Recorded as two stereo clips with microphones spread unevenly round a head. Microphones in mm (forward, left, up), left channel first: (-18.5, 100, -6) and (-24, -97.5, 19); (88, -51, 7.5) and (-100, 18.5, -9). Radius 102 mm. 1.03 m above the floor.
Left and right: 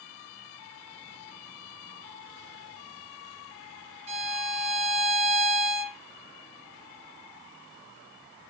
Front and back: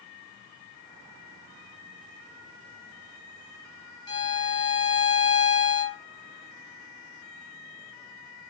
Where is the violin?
70° right, 0.6 m.